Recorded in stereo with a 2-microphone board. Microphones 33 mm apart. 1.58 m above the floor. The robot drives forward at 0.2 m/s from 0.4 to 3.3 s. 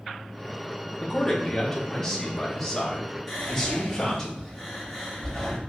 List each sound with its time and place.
1.0 s a man speaking: 15° left (ahead or behind), 1.1 m; by 4.3 s 10° left (ahead or behind), 1.6 m
3.3 s whispering: centre (ahead or behind), 2.5 m